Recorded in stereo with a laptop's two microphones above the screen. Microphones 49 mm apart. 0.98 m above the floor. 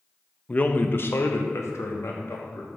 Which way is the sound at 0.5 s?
25° left (ahead or behind).